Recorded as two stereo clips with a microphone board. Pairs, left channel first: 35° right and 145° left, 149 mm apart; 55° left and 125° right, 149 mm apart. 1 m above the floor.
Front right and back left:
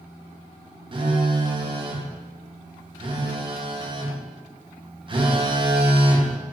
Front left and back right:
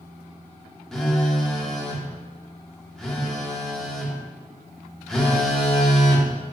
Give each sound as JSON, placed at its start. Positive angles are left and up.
{"t": 0.9, "sound": "a phone buzzing", "azimuth_deg": 140, "distance_m": 0.6}